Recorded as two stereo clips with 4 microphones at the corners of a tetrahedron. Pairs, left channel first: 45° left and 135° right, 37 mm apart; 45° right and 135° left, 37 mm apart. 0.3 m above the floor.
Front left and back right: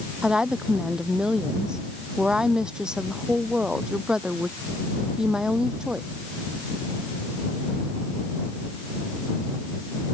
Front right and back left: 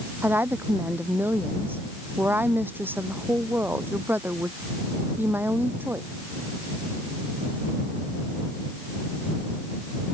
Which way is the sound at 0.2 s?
155° left.